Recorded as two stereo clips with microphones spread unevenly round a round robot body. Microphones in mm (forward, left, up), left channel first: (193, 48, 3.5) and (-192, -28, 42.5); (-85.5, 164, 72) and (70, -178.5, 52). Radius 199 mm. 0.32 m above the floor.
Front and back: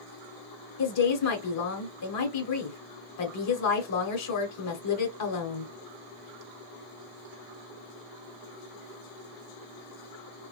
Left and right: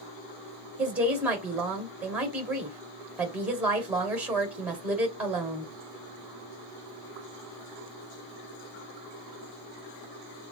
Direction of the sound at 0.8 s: 15° left.